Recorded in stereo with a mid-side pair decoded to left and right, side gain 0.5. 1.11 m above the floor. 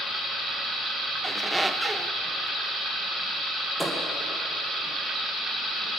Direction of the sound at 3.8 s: Straight ahead.